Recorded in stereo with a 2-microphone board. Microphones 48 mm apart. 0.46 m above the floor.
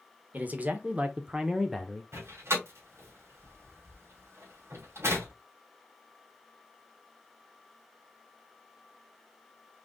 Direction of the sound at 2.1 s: 70° right (ahead or behind).